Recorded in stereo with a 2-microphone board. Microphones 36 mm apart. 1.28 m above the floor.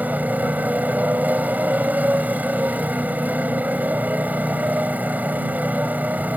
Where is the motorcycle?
55° right (ahead or behind).